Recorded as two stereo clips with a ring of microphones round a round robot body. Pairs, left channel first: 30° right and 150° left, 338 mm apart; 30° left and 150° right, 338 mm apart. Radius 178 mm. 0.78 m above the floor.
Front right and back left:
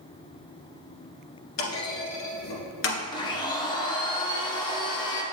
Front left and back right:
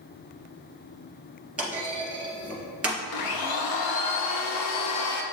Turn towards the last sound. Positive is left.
turn(degrees=45)